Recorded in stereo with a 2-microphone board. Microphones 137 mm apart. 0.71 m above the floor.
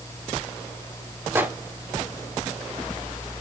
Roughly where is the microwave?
Centre.